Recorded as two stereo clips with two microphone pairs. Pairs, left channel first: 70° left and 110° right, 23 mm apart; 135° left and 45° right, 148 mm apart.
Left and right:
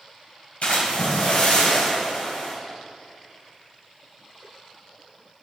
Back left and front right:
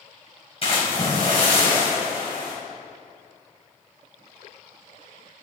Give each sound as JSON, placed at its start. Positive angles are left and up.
{"t": 0.6, "sound": "a splash", "azimuth_deg": 85, "distance_m": 5.0}